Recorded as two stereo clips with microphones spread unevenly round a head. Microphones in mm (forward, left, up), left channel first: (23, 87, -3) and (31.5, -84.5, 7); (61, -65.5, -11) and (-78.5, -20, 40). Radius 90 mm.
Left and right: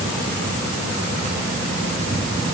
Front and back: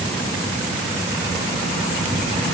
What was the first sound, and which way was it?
Only background noise.